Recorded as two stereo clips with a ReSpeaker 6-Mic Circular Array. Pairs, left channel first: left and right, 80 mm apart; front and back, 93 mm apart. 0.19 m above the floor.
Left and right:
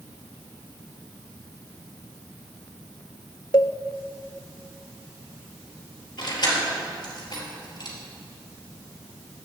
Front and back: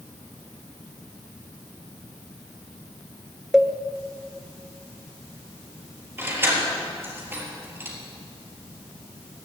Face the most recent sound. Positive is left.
turn(degrees=115)